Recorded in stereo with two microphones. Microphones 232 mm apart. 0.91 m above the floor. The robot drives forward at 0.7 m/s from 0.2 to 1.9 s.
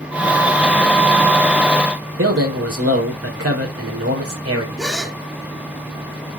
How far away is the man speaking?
About 4 m.